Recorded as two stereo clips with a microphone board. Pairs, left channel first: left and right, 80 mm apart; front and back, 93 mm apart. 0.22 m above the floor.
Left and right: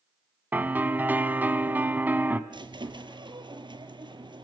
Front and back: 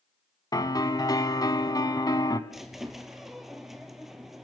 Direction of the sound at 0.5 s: 30° right.